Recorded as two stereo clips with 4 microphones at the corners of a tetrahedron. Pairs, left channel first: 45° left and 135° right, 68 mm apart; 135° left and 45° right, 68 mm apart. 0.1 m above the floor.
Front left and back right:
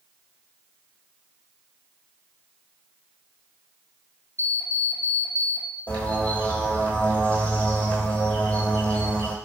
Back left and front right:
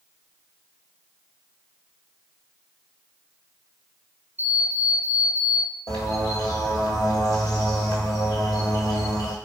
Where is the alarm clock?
120° right, 1.1 m.